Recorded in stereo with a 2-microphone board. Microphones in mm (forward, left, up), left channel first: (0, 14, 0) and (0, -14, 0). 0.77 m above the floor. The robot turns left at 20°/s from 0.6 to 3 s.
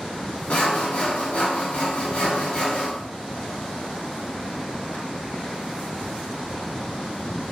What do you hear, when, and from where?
0.5 s sawing: 105° left, 0.6 m; by 2.9 s 60° left, 0.6 m